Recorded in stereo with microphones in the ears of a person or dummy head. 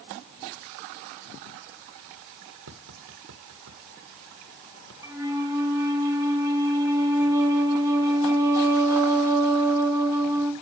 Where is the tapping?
75° right (ahead or behind), 1.6 m.